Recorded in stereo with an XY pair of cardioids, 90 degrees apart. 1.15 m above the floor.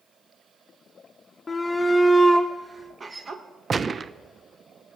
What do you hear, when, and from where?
1.5 s a shout: 35° left, 0.7 m; by 3.4 s 45° right, 1.1 m
3.7 s a gunshot: 40° right, 0.5 m